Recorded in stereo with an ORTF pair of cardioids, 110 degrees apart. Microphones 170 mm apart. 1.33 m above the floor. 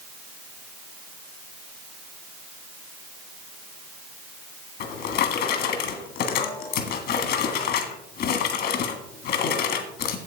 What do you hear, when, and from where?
4.8 s a drawer: 65° left, 1.6 m